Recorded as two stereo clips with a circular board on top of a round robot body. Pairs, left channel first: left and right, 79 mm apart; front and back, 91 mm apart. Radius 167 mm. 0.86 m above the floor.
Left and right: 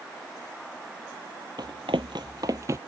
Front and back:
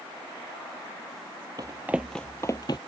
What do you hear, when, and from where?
1.6 s running footsteps: 135° right; by 2.8 s 40° right